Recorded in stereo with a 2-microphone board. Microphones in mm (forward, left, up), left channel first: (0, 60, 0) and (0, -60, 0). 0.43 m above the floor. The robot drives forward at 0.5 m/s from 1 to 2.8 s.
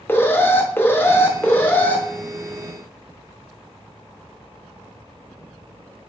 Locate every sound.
0.1 s an alarm: 20° left (ahead or behind), 0.5 m; by 2.0 s 15° left (ahead or behind), 0.7 m